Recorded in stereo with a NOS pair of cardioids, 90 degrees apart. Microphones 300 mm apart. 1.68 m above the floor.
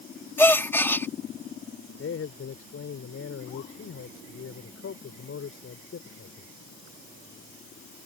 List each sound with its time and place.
0.4 s a gasp: 10° left
2.0 s a man speaking: 50° left